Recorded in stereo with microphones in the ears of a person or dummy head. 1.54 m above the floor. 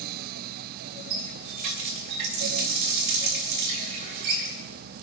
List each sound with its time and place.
1.1 s a running tap: 60° right (ahead or behind), 3 m